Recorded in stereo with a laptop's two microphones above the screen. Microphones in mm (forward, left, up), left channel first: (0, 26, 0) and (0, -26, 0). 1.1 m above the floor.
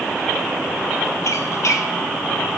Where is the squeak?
65° left (ahead or behind), 1.1 m.